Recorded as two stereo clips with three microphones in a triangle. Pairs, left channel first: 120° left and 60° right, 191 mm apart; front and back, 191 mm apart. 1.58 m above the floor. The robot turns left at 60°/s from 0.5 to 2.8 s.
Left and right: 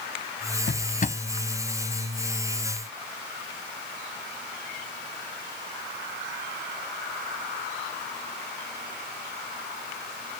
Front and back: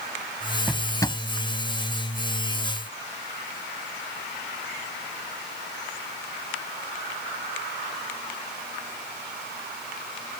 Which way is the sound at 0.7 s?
95° left.